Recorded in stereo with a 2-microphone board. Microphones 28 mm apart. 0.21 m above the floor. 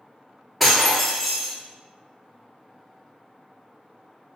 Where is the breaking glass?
Centre (ahead or behind), 0.8 m.